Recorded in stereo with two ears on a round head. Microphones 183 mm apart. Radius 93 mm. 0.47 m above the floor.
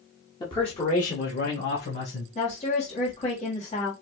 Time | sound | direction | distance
0.4 | a man speaking | 20° left (ahead or behind) | 1.2 m
2.4 | a woman speaking | 35° left (ahead or behind) | 1.8 m